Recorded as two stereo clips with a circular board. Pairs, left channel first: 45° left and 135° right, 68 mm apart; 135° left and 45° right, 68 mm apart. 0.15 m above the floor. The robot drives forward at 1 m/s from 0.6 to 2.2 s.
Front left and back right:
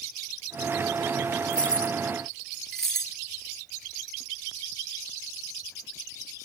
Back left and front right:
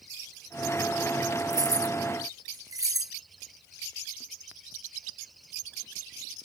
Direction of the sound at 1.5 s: 25° right.